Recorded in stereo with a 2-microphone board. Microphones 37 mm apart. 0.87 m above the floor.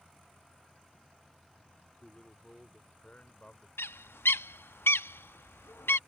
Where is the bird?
80° left.